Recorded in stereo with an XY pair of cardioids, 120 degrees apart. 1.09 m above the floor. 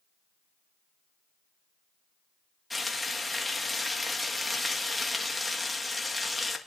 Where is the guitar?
No guitar in this recording.